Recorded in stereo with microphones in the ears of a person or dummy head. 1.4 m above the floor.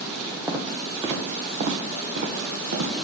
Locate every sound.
0.5 s footsteps: 15° right (ahead or behind), 2 m; by 2.9 s 55° right (ahead or behind), 2.5 m